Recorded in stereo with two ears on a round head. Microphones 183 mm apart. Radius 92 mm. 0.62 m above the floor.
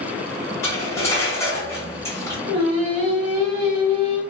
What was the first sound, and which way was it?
Cutlery clinking, 15° left (ahead or behind).